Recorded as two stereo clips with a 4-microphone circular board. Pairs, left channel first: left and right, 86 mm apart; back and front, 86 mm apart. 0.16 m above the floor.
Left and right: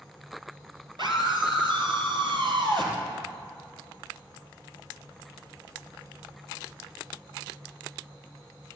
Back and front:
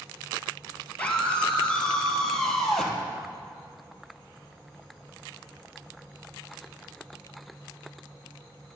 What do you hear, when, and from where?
1.0 s a scream: 110° right, 3 m; by 3.0 s 95° right, 3.5 m